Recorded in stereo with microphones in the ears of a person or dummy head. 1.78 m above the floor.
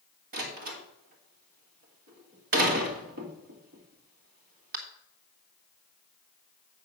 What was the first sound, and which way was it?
A door slam, 45° right (ahead or behind).